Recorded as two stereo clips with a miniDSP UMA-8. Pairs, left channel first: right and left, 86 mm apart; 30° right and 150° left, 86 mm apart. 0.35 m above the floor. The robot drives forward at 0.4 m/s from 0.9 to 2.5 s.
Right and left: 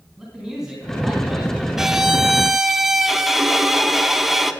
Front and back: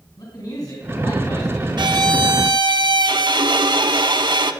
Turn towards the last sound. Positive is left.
turn(degrees=175)